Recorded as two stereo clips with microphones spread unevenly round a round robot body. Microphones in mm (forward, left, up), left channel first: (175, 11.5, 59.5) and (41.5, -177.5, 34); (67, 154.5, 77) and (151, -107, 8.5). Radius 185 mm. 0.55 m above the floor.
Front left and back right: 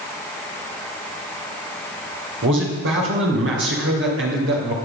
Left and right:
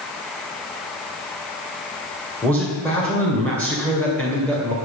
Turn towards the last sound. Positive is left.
turn(degrees=-160)